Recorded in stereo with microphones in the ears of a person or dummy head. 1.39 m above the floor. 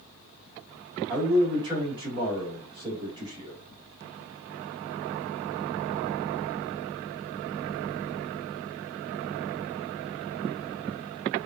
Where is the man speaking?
25° right (ahead or behind), 1.8 m.